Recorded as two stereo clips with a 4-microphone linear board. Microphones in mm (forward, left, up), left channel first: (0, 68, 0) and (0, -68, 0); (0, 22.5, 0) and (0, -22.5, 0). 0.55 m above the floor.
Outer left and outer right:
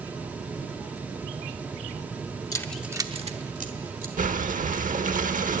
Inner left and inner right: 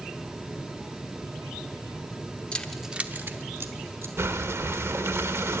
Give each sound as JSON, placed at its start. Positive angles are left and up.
{"t": 2.5, "sound": "keys jangling", "side_deg": 25, "distance_m": 0.9}
{"t": 4.2, "sound": "breathing", "side_deg": -75, "distance_m": 0.8}